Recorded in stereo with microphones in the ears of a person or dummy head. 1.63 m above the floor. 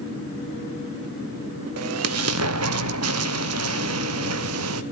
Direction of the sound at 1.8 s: 85° right.